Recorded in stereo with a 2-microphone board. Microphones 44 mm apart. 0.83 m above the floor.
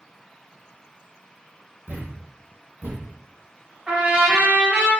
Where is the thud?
40° right (ahead or behind), 0.7 m.